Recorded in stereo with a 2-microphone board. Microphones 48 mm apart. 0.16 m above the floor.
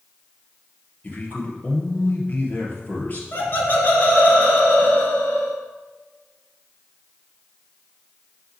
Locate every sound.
1.0 s a man speaking: 35° left (ahead or behind), 2.5 m
3.3 s laughter: 45° left (ahead or behind), 2.5 m